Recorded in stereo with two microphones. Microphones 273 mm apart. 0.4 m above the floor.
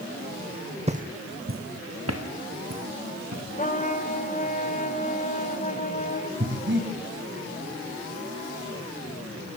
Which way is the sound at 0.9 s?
25° right (ahead or behind).